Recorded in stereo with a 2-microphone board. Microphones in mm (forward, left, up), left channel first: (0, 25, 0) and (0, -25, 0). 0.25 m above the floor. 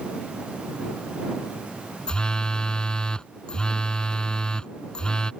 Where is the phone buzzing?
15° left (ahead or behind).